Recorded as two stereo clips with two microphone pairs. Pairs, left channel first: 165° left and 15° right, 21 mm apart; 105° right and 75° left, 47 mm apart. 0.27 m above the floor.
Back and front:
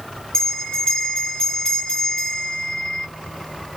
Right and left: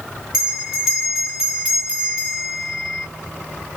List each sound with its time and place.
0.3 s a bell: 150° left, 2.0 m